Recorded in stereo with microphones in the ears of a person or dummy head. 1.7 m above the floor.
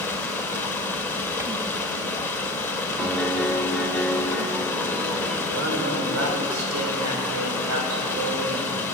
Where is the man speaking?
75° right (ahead or behind), 7.5 m.